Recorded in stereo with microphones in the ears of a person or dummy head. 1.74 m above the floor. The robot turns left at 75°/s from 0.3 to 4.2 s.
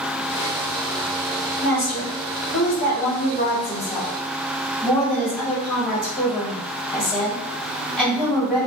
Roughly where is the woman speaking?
Behind.